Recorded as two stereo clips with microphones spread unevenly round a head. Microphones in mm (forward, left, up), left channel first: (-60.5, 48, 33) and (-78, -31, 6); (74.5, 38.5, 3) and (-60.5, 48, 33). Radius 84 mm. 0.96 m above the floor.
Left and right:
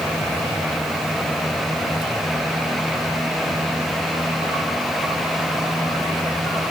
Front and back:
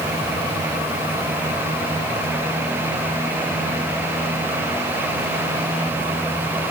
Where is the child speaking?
No child speaking in this recording.